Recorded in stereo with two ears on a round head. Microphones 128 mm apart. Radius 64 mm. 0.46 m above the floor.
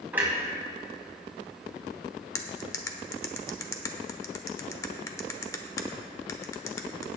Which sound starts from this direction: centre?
A clunk, at 0.1 s.